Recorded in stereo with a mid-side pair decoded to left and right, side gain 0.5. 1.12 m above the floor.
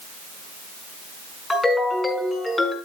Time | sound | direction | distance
1.5 | a ringtone | 20° left | 5.5 m